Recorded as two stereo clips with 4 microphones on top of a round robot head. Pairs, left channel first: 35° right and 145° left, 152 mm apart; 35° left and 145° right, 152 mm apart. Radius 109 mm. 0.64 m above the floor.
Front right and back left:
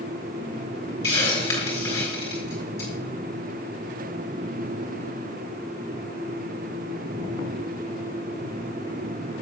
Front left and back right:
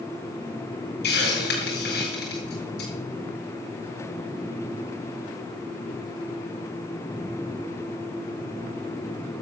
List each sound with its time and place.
1.0 s a hiss: 35° left, 5 m